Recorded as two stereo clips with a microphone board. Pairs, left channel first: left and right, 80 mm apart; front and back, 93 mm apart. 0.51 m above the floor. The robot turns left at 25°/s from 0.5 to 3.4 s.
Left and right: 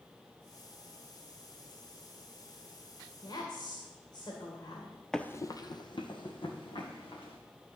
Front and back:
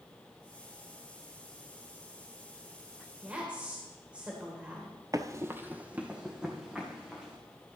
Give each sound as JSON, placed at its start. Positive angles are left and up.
{"t": 3.2, "sound": "a woman speaking", "azimuth_deg": 110, "distance_m": 1.7}
{"t": 5.1, "sound": "running footsteps", "azimuth_deg": 170, "distance_m": 0.6}